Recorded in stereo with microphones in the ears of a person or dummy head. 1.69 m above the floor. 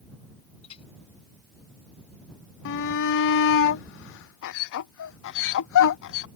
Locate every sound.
0.6 s a clink: 35° left (ahead or behind)
2.6 s a shout: 65° left (ahead or behind)